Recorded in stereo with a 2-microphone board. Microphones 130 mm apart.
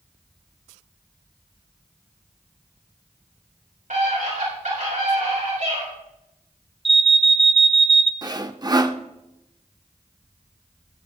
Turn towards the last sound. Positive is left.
turn(degrees=-30)  # may be behind; listen again after turning